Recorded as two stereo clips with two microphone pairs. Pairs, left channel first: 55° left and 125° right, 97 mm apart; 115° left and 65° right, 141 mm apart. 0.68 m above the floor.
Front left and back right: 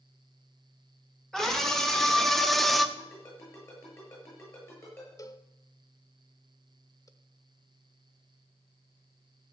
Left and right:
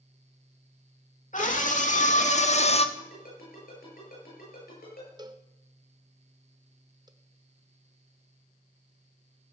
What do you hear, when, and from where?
1.3 s a scream: 140° left, 2 m
3.0 s a ringtone: 115° left, 7.5 m
5.2 s a cowbell: straight ahead, 0.8 m